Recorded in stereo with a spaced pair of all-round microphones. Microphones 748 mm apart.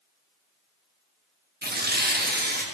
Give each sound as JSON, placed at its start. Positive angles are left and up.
{"t": 1.6, "sound": "tearing paper", "side_deg": -15, "distance_m": 1.2}